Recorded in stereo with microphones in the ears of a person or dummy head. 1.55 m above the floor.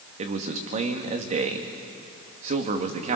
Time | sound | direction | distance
0.2 | a man speaking | 40° right (ahead or behind) | 2 m